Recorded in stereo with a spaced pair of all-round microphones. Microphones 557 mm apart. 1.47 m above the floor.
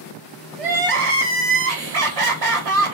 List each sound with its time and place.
0.6 s crying: 80° right, 1.1 m